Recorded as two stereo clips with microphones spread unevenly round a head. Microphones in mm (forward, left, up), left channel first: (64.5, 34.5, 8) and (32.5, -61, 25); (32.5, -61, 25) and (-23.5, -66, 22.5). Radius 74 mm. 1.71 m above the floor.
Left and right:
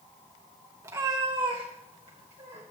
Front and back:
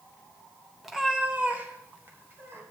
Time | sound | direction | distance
0.8 | a cat meowing | 85° right | 1.2 m